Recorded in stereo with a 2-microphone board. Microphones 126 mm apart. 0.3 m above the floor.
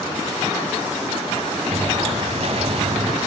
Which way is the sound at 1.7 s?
55° right (ahead or behind).